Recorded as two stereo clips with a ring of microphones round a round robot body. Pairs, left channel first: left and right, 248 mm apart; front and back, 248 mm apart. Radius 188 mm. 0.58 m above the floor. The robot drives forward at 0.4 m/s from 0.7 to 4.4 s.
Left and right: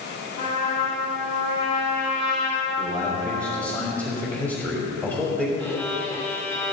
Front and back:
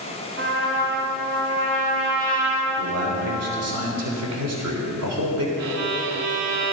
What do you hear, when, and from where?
0.4 s a trumpet: 155° left, 5 m; by 3.8 s 160° left, 6 m
2.8 s a man speaking: 170° right, 1.5 m; by 5.5 s 175° right, 2 m
5.6 s a violin: straight behind, 0.8 m